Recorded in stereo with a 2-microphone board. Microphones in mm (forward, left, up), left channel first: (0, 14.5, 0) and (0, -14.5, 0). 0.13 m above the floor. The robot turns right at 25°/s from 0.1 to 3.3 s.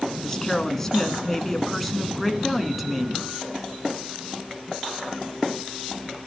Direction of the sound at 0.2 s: 15° left (ahead or behind).